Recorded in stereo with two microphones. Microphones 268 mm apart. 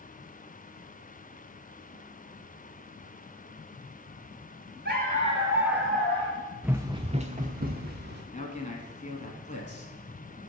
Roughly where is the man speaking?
Left.